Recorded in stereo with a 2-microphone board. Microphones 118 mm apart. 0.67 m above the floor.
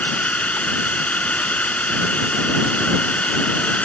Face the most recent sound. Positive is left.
turn(degrees=10)  # may be behind; listen again after turning